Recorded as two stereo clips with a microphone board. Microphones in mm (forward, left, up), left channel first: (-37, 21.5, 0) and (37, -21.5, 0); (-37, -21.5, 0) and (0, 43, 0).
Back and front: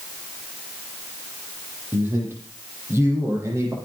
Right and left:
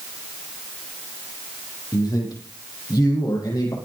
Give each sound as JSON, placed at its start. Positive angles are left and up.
{"t": 1.9, "sound": "a man speaking", "azimuth_deg": -95, "distance_m": 9.5}